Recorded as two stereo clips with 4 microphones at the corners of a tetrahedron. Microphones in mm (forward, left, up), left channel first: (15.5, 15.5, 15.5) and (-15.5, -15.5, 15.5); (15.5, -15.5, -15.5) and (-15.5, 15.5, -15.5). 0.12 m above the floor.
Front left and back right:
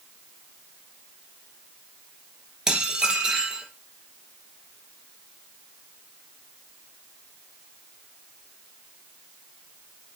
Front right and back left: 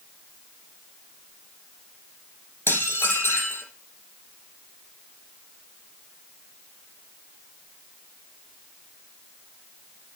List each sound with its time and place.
2.7 s dishes clattering: 65° right, 2.5 m